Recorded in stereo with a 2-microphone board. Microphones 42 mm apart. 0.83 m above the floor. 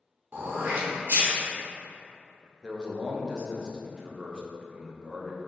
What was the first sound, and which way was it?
Throat clearing, 50° right (ahead or behind).